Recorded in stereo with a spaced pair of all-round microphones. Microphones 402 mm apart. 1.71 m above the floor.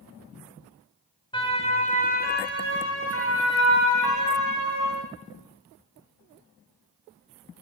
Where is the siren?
10° left (ahead or behind), 7 m; by 5.0 s 50° left (ahead or behind), 8 m.